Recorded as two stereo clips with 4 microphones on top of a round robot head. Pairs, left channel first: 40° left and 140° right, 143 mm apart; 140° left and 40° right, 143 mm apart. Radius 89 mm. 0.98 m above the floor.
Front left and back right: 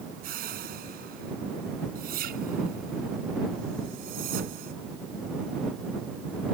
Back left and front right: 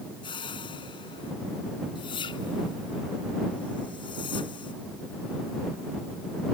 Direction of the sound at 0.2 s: 165° right.